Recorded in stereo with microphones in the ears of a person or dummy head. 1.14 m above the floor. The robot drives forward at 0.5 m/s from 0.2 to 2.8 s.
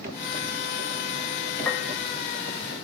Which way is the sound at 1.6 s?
10° left (ahead or behind).